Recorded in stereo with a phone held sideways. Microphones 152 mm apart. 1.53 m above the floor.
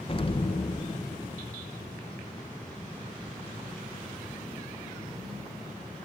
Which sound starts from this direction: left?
An explosion, at 0.1 s.